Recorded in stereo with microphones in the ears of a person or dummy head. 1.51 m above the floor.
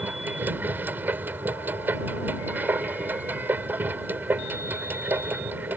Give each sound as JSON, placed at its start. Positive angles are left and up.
{"t": 0.0, "sound": "a machine running", "side_deg": -15}